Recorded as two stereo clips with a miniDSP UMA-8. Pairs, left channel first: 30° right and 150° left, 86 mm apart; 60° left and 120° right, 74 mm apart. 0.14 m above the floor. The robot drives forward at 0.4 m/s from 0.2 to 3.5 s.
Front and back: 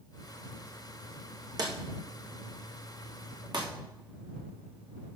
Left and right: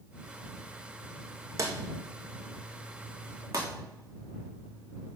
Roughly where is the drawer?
Behind.